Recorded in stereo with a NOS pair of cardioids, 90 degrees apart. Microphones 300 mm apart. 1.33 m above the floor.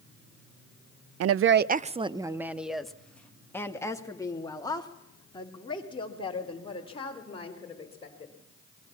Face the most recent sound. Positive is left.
turn(degrees=20)